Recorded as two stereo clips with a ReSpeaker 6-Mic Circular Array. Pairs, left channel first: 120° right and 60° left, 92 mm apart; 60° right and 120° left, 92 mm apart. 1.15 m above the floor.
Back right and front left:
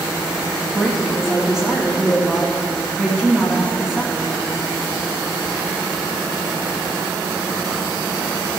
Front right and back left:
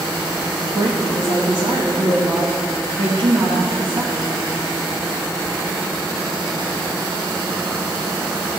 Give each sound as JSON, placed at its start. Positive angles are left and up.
{"t": 0.7, "sound": "a woman speaking", "azimuth_deg": 140, "distance_m": 1.3}